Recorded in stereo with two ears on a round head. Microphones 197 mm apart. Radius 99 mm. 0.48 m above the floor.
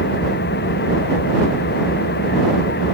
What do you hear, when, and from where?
0.0 s an engine running: 50° left (ahead or behind)